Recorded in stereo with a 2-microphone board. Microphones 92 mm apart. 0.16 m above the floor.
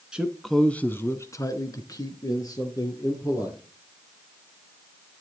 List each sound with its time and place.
0.1 s a man speaking: 10° right (ahead or behind), 1.4 m; by 3.6 s 45° left (ahead or behind), 4 m